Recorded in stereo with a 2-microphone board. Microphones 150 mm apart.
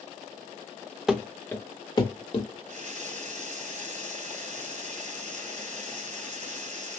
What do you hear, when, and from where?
1.1 s running footsteps: centre (ahead or behind), 0.7 m; by 2.5 s 40° left (ahead or behind), 1.0 m
2.6 s a running tap: 60° right (ahead or behind), 1.8 m